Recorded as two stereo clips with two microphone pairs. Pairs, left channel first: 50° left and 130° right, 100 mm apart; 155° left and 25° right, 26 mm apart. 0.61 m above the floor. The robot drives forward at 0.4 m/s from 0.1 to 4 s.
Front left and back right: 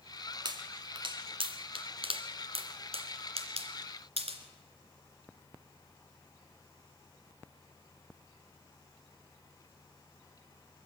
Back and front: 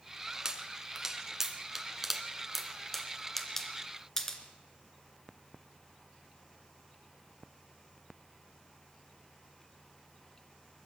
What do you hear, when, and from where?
0.5 s a pop: 90° right, 1.9 m; by 4.4 s 125° right, 2.5 m